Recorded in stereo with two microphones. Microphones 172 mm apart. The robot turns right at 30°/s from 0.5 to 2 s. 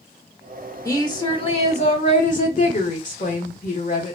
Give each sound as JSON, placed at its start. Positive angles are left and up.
{"t": 0.8, "sound": "a woman speaking", "azimuth_deg": 25, "distance_m": 1.7}